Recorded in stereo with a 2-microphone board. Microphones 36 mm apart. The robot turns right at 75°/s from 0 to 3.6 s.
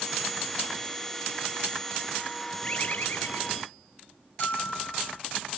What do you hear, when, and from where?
2.6 s a bird: 30° left; by 3.7 s 105° left
4.4 s a bell: 50° left (ahead or behind)